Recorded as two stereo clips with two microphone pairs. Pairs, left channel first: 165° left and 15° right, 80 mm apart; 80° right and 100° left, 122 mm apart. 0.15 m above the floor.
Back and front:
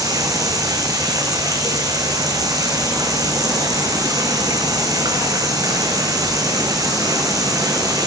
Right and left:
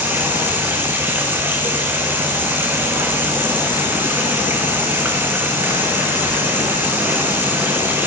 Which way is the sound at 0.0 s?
25° left.